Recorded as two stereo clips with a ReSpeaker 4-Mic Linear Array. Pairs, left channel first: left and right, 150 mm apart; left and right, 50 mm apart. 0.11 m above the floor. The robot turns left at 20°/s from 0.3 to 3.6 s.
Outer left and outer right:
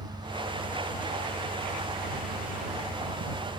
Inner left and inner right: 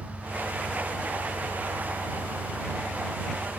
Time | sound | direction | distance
0.0 | an engine running | 20° right | ?